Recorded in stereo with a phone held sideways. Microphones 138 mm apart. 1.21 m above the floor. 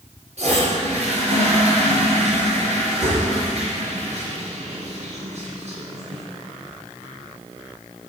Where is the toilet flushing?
55° right (ahead or behind), 4.5 m.